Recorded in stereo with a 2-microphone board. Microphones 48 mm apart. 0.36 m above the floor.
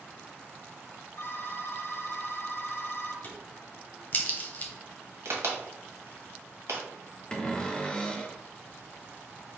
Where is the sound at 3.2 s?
40° left (ahead or behind), 0.9 m.